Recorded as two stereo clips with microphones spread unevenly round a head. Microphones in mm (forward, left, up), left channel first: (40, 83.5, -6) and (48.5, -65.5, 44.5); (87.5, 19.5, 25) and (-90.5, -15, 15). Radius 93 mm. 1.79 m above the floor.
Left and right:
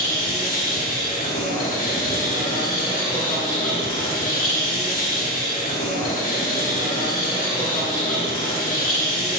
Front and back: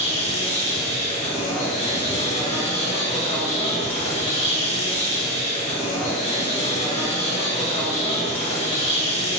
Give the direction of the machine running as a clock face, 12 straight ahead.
10 o'clock.